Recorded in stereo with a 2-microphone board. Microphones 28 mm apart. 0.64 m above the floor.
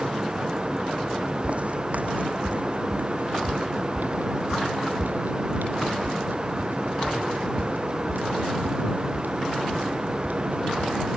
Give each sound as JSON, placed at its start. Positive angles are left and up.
{"t": 1.4, "sound": "footsteps", "side_deg": -45}